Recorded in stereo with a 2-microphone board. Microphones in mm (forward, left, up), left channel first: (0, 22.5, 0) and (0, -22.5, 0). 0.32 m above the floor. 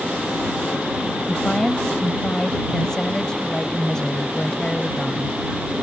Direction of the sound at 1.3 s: 15° left (ahead or behind).